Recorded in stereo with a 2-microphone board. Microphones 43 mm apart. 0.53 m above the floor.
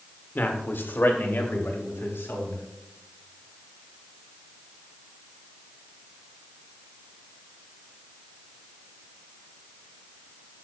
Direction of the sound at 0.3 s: 50° left (ahead or behind).